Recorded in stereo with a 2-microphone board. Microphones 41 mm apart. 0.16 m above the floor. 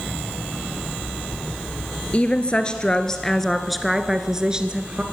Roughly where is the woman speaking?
Left.